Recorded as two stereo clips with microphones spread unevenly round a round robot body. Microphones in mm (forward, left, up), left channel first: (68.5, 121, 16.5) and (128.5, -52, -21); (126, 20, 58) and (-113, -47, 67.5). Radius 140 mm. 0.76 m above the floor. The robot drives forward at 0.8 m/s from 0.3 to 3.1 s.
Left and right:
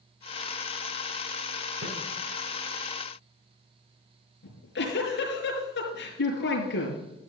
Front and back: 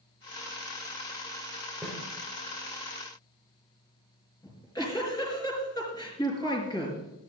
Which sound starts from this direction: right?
A snare drum, at 1.8 s.